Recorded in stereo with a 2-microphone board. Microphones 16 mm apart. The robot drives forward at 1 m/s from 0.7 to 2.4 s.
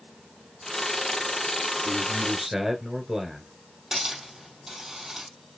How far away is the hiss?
About 3 m.